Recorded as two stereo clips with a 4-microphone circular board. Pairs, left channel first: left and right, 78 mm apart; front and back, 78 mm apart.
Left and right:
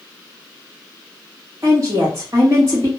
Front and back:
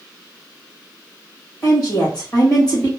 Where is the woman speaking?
40° right, 1.8 m.